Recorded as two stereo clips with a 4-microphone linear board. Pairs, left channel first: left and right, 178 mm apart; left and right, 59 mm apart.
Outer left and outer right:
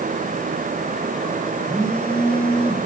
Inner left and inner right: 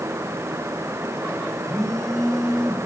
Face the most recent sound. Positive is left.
turn(degrees=5)  # may be behind; listen again after turning